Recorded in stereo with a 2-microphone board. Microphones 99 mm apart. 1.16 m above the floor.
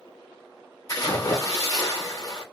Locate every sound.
0.9 s a splash: 35° left (ahead or behind), 1.1 m